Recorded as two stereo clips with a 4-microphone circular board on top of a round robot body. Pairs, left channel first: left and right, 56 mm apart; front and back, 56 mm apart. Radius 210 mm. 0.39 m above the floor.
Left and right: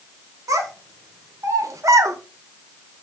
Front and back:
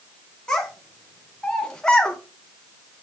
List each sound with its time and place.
0.5 s a child speaking: 75° right, 1.9 m